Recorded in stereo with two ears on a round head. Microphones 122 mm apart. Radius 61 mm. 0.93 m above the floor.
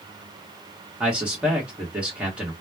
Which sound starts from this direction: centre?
A man speaking, at 1.0 s.